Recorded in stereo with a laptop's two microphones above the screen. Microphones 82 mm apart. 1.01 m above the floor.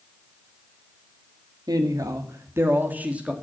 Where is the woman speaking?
55° right (ahead or behind), 1.5 m; by 3.3 s 10° right (ahead or behind), 1.5 m.